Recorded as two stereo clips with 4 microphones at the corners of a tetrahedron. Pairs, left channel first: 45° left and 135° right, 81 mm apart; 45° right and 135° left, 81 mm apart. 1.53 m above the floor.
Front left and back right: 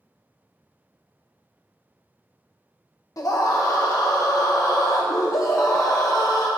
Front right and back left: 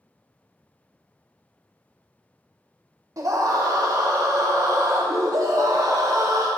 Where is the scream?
90° left, 0.8 m.